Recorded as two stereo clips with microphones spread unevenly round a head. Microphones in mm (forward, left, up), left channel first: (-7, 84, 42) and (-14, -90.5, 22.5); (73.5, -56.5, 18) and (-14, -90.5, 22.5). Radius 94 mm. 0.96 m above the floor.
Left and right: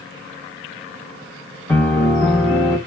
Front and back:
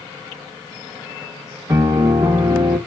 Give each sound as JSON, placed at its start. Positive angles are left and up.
{"t": 1.7, "sound": "a piano", "azimuth_deg": 155, "distance_m": 0.9}